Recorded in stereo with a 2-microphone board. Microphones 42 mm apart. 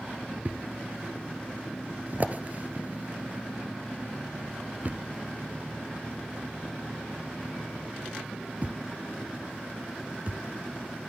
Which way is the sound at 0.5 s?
40° right (ahead or behind).